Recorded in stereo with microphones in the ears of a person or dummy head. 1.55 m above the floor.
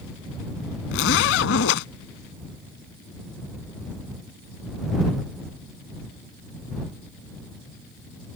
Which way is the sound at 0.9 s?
70° left (ahead or behind).